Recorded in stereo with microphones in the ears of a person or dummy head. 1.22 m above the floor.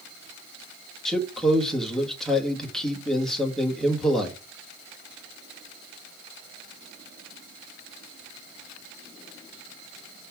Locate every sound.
1.1 s a man speaking: centre (ahead or behind), 1.7 m